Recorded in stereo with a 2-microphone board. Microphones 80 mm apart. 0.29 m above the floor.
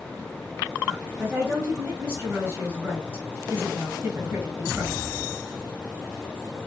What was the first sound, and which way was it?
A woman speaking, 30° right (ahead or behind).